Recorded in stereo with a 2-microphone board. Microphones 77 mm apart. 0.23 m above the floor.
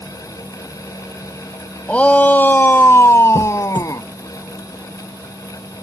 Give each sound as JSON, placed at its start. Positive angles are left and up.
{"t": 1.9, "sound": "a shout", "side_deg": 15}
{"t": 3.4, "sound": "a squeak", "side_deg": -70}